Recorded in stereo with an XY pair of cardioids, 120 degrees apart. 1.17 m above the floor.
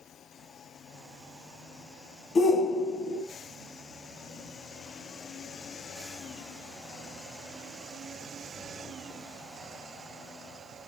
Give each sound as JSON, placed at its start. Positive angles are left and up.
{"t": 2.4, "sound": "a shout", "azimuth_deg": 40, "distance_m": 0.6}